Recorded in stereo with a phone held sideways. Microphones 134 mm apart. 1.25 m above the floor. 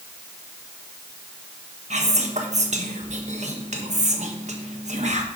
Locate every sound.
1.9 s whispering: 60° right (ahead or behind), 1.4 m